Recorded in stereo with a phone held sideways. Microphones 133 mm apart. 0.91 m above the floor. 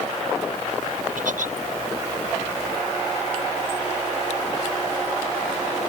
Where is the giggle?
85° right.